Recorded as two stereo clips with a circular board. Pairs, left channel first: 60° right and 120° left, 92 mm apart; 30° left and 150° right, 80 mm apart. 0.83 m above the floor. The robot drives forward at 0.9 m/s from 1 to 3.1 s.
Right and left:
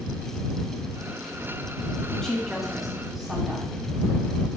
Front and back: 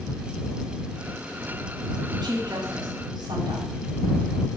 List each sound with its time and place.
2.1 s a woman speaking: 145° right, 1.8 m; by 3.7 s 155° right, 2.5 m